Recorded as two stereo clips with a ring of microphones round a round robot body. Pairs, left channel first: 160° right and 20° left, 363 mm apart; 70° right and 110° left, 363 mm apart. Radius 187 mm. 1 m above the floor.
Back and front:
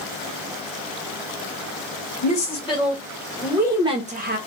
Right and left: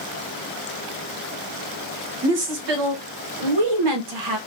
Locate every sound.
2.2 s a woman speaking: 130° left, 1.5 m; by 4.4 s 85° left, 1.0 m